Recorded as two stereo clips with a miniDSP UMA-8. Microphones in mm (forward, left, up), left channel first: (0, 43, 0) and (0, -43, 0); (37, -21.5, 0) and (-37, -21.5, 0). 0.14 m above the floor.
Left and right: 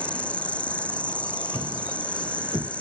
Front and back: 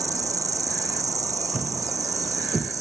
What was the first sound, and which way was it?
An insect, 160° left.